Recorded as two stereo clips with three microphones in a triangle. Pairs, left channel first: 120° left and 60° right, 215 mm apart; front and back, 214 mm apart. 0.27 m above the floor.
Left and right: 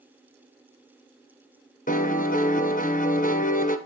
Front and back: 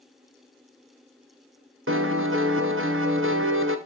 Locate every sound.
1.9 s a piano: 170° left, 1.0 m